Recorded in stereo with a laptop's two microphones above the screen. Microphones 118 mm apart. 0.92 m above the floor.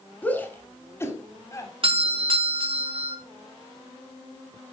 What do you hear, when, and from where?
0.2 s a shout: 15° left (ahead or behind), 3 m; by 1.7 s 30° left (ahead or behind), 3.5 m
1.8 s a doorbell: 50° right (ahead or behind), 1.9 m